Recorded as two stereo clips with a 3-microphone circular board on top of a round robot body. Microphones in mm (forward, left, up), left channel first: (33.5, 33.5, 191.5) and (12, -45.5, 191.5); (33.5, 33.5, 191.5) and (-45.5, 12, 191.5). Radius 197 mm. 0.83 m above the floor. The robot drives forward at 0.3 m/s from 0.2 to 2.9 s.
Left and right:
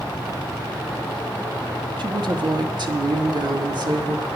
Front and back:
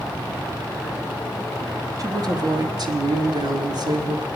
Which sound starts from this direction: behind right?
A woman speaking, at 2.0 s.